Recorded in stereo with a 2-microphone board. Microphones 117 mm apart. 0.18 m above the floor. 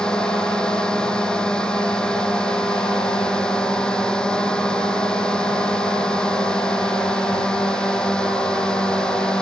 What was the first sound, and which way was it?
A drone, 5° left (ahead or behind).